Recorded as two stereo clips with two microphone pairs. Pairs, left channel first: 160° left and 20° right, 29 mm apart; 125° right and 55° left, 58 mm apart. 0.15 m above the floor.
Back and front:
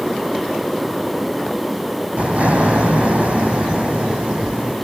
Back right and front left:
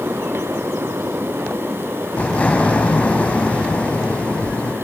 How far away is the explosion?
About 5 m.